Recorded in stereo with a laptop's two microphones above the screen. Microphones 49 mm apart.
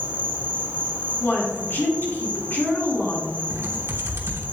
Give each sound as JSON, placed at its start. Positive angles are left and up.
{"t": 0.0, "sound": "an insect", "side_deg": -35, "distance_m": 1.1}
{"t": 1.2, "sound": "a woman speaking", "side_deg": 45, "distance_m": 2.0}
{"t": 3.5, "sound": "typing on a keyboard", "side_deg": -65, "distance_m": 0.9}